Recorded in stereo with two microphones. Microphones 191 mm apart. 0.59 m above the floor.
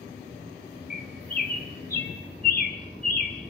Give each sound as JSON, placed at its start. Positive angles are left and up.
{"t": 0.9, "sound": "a bird", "side_deg": 50, "distance_m": 1.5}